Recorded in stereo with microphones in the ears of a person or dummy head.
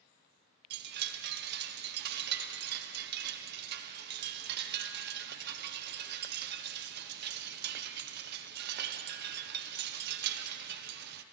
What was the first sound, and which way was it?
A chime, 60° right (ahead or behind).